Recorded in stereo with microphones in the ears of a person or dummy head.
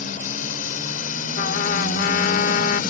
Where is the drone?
45° left (ahead or behind); by 2.9 s 50° left (ahead or behind).